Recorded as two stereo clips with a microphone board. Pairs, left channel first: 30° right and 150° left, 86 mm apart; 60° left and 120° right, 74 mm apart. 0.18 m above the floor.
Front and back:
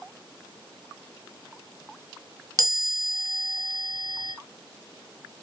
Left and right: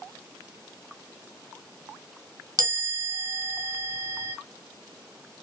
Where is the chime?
160° right, 1.0 m.